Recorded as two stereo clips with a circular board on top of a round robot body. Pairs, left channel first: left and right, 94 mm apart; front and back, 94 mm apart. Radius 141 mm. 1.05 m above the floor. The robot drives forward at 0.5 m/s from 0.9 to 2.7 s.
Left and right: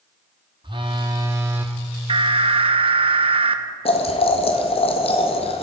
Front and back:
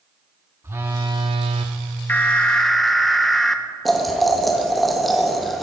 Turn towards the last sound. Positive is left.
turn(degrees=90)